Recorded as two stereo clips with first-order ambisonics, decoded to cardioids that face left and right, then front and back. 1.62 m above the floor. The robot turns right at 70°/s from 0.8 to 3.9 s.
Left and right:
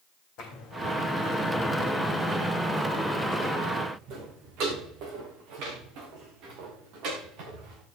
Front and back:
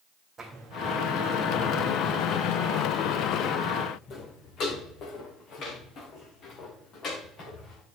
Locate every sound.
0.4 s footsteps: 110° left, 3.5 m; by 7.8 s 60° right, 7 m